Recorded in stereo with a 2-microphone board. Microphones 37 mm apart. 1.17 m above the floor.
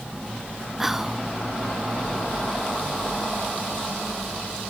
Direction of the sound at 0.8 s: 10° right (ahead or behind).